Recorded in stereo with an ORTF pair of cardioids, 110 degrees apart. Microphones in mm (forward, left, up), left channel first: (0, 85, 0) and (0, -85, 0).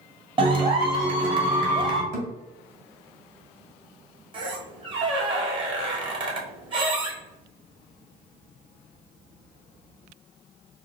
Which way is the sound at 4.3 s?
30° right.